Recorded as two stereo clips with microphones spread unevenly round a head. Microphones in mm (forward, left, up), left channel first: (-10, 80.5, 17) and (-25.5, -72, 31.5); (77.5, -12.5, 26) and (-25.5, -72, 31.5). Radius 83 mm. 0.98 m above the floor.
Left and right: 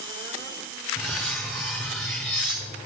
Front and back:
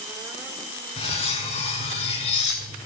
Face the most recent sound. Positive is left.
turn(degrees=-10)